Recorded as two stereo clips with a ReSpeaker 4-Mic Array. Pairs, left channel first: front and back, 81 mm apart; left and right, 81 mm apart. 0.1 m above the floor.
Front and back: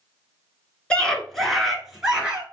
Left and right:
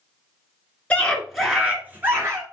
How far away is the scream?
About 1.3 m.